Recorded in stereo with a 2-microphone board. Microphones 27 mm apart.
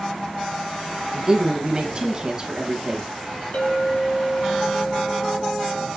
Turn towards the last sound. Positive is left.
turn(degrees=70)  # may be behind; listen again after turning